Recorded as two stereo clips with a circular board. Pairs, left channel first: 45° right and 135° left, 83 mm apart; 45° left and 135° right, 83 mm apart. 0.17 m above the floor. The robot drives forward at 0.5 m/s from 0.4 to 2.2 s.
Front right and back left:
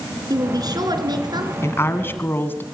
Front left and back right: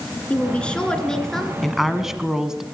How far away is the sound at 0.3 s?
About 2 m.